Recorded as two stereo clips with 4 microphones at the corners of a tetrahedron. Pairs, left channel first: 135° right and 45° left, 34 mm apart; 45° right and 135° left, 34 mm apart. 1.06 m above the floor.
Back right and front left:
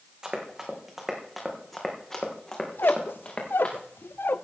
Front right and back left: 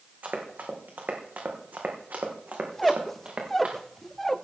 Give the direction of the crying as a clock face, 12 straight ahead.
No crying in this recording.